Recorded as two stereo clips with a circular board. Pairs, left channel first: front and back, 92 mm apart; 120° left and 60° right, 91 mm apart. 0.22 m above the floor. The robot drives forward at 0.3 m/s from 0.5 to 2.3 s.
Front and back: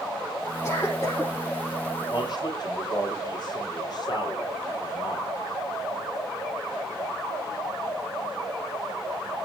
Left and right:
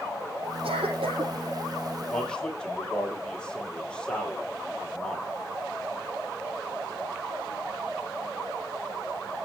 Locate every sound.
0.6 s a cough: 60° right, 8 m
2.1 s a man speaking: 40° left, 7.5 m